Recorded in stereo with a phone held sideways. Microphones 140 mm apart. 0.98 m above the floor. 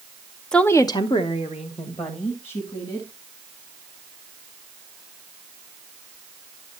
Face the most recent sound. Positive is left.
turn(degrees=45)  # may be behind; listen again after turning